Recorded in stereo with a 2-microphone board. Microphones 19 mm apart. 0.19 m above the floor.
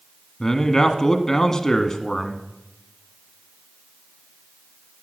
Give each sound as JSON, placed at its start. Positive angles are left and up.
{"t": 0.4, "sound": "a man speaking", "side_deg": 30, "distance_m": 1.4}